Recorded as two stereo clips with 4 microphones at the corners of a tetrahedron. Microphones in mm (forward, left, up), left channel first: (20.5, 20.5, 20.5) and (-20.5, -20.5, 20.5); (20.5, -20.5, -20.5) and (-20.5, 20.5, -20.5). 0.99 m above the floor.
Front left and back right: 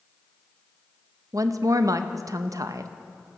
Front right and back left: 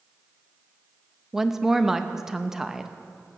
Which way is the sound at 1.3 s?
145° right.